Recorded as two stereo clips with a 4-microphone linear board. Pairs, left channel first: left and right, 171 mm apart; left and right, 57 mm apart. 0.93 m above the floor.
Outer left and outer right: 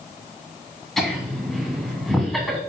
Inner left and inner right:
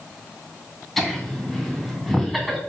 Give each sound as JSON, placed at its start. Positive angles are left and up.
{"t": 1.0, "sound": "laughter", "side_deg": 0, "distance_m": 2.0}